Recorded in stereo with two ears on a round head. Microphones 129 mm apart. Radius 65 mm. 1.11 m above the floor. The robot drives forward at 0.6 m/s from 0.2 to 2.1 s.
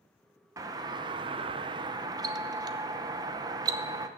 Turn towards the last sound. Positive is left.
turn(degrees=-25)  # may be behind; listen again after turning